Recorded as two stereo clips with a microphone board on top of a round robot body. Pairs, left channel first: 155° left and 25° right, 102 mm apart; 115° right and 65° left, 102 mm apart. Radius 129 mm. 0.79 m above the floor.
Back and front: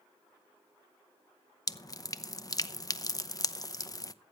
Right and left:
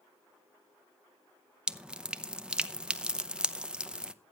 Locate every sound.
1.7 s dripping: 145° left, 1.0 m